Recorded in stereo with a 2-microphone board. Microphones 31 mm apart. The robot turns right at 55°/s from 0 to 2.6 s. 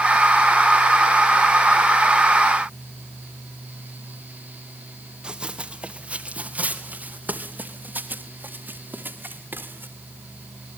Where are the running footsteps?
30° right (ahead or behind), 2.5 m; by 9.9 s 80° right, 4 m.